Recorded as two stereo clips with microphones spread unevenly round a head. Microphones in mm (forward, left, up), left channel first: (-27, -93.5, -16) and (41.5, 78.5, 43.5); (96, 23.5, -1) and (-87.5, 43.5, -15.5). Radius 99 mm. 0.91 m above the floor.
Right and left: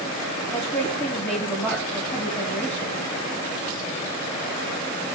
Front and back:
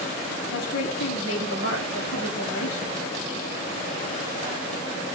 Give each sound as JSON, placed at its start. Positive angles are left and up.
{"t": 0.5, "sound": "a woman speaking", "azimuth_deg": -30, "distance_m": 7.0}